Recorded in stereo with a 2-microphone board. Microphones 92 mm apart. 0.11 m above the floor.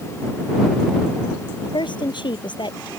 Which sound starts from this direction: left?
A woman speaking, at 1.6 s.